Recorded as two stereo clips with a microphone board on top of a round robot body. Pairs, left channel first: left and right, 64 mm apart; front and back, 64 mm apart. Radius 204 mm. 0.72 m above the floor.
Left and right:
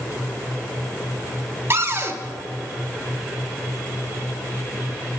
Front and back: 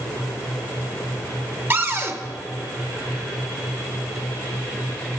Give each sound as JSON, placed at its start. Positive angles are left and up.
{"t": 1.7, "sound": "a cupboard door", "azimuth_deg": -135, "distance_m": 1.3}